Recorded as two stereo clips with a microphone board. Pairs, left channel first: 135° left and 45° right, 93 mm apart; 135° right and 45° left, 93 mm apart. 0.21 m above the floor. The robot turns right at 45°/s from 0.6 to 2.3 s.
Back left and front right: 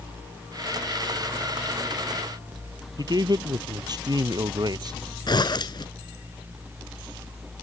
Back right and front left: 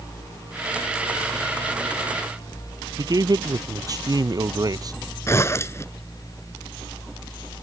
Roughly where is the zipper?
Behind.